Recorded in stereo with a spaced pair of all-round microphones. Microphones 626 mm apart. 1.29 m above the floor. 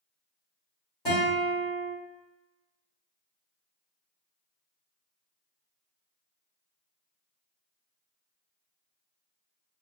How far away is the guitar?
About 1.8 m.